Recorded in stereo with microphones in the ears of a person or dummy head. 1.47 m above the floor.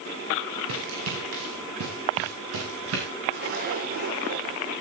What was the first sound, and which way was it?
Running footsteps, 75° right (ahead or behind).